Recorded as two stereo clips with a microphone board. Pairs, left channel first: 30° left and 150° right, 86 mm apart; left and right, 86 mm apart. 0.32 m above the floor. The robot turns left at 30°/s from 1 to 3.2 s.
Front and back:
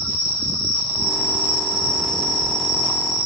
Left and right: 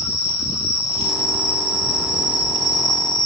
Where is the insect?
150° left, 1.7 m; by 3.3 s 85° left, 1.7 m.